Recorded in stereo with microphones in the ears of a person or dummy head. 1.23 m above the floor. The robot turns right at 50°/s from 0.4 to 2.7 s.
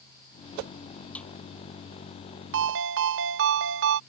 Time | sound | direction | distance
1.1 | a snare drum | 10° left (ahead or behind) | ?
2.5 | a ringtone | 55° right (ahead or behind) | ?